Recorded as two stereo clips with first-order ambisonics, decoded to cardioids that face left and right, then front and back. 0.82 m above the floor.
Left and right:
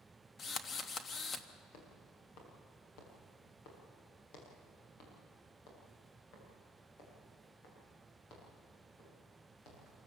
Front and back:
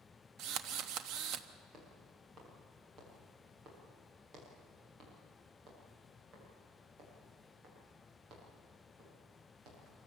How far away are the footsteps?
About 6.5 m.